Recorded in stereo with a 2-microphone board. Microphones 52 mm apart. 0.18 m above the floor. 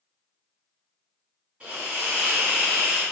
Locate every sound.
1.6 s a hiss: 25° right (ahead or behind), 1.9 m